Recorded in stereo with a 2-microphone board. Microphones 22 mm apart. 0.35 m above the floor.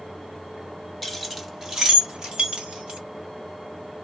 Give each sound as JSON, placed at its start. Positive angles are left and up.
{"t": 1.0, "sound": "keys jangling", "side_deg": 5, "distance_m": 1.0}